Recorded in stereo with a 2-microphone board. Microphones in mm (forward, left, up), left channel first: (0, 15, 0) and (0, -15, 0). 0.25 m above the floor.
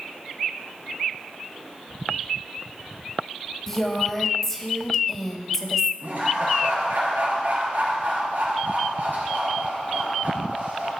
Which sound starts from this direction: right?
Laughter, at 6.0 s.